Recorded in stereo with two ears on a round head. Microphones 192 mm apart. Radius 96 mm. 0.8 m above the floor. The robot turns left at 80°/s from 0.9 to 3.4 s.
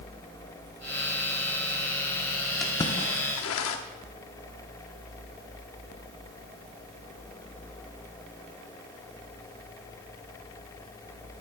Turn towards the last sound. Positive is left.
turn(degrees=65)  # may be behind; listen again after turning